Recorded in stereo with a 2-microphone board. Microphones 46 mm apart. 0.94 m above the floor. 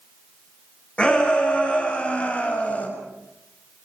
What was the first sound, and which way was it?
A shout, 25° left (ahead or behind).